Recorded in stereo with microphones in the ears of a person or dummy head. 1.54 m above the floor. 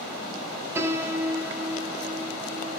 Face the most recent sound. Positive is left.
turn(degrees=-10)  # may be behind; listen again after turning